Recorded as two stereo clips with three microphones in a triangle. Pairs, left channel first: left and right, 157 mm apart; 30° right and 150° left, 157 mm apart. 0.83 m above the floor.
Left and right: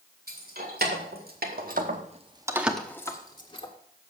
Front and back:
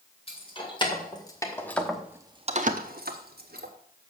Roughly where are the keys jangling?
Right.